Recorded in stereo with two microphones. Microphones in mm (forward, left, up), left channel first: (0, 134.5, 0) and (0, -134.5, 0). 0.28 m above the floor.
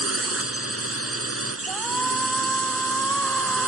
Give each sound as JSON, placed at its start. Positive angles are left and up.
{"t": 0.0, "sound": "a drone", "side_deg": -60}
{"t": 1.7, "sound": "a shout", "side_deg": 5}